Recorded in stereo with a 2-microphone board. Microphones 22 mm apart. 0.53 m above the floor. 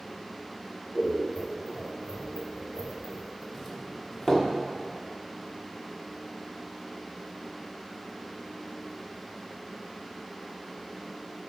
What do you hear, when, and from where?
0.9 s scissors: 50° left (ahead or behind), 1.3 m
3.5 s a doorbell: 25° left (ahead or behind), 1.2 m